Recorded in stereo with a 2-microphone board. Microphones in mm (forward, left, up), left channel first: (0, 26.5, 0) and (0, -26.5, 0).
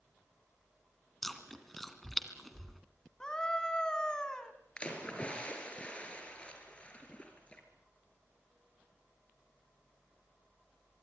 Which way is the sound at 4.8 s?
25° left (ahead or behind).